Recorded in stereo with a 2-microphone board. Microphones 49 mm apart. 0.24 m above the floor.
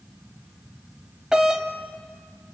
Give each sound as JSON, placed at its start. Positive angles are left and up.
{"t": 1.3, "sound": "a doorbell", "side_deg": -15, "distance_m": 1.4}